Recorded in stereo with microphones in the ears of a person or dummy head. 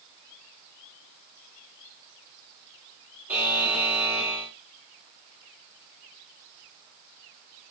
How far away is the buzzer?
About 2.5 m.